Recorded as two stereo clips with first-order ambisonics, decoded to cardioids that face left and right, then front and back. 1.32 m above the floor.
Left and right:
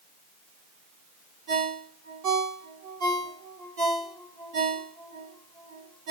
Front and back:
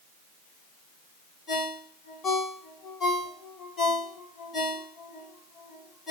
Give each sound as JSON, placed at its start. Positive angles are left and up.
{"t": 1.5, "sound": "a ringtone", "azimuth_deg": -70, "distance_m": 1.6}